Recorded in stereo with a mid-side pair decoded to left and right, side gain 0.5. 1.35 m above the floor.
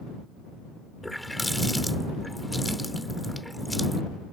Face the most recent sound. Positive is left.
turn(degrees=5)